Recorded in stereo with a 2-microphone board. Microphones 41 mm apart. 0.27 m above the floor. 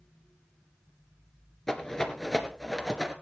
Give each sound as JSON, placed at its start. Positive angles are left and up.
{"t": 1.7, "sound": "a rattle", "side_deg": 10, "distance_m": 2.0}